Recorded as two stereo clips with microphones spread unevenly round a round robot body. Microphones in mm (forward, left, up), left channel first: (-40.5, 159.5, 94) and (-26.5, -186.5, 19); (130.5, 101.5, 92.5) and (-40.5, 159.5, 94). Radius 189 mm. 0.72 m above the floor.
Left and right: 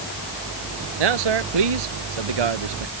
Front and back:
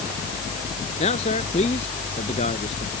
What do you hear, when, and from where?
1.0 s a man speaking: 85° right